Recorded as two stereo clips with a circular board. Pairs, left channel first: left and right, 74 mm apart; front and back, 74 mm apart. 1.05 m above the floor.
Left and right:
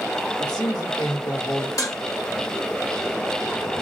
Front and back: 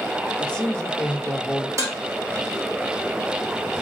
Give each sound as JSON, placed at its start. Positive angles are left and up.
{"t": 0.4, "sound": "a man speaking", "azimuth_deg": 75, "distance_m": 1.3}
{"t": 1.8, "sound": "dishes clattering", "azimuth_deg": 130, "distance_m": 1.3}